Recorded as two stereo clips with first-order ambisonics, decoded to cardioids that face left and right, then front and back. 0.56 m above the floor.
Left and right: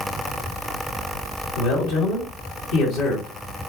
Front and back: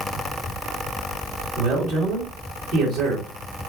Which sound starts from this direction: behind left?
A man speaking, at 1.6 s.